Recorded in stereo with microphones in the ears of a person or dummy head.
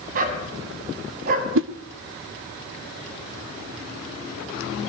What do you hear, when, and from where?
0.1 s a dog barking: 45° right (ahead or behind), 4.5 m
1.6 s a whoosh: 70° right (ahead or behind), 1.2 m